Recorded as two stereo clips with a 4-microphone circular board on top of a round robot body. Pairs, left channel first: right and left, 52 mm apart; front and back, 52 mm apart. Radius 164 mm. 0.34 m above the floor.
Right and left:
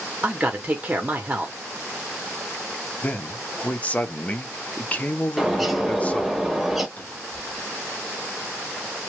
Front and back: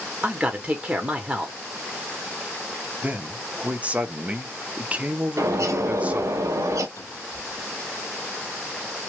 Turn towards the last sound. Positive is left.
turn(degrees=-25)